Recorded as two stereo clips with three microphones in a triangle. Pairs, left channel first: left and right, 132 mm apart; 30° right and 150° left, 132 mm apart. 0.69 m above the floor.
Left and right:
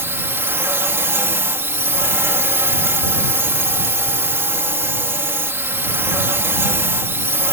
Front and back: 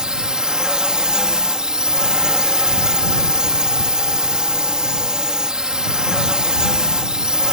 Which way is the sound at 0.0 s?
135° right.